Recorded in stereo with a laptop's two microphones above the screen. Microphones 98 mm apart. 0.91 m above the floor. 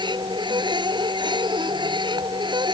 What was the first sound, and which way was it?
A machine running, 55° right (ahead or behind).